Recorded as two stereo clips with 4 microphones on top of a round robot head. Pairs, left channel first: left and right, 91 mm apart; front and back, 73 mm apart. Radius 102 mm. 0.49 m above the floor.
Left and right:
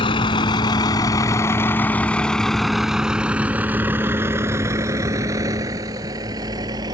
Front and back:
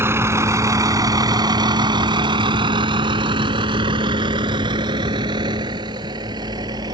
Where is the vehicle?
125° left; by 6.9 s 140° right.